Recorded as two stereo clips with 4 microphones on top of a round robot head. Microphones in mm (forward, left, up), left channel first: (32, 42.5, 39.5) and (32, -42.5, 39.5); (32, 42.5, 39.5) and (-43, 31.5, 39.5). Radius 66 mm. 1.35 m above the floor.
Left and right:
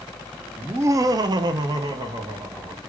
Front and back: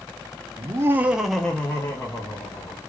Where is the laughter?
155° right, 0.5 m; by 2.8 s 45° right, 1.2 m.